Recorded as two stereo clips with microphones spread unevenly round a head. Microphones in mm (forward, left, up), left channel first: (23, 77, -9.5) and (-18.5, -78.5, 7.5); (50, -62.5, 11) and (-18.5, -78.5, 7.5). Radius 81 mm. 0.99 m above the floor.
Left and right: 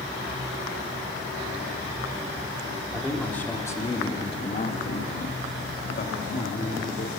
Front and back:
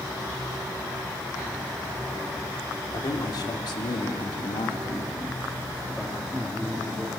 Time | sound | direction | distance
2.9 | a man speaking | 10° right | 3 m